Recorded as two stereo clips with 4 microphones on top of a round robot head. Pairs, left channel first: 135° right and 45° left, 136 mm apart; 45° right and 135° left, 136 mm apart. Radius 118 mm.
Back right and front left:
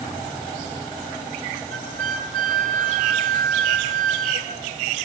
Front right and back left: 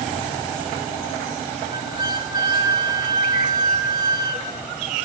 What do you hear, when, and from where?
1.7 s a flute: 75° left, 1.2 m